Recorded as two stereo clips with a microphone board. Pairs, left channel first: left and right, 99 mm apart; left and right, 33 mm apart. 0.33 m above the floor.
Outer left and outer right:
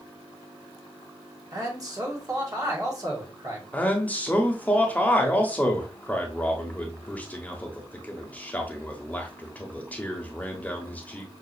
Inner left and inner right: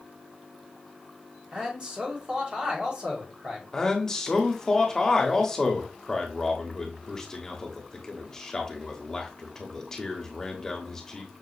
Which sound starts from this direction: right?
A man speaking, at 1.5 s.